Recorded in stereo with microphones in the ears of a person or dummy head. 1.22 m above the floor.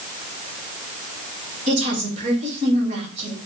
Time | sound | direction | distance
1.7 | a woman speaking | 40° right (ahead or behind) | 2.5 m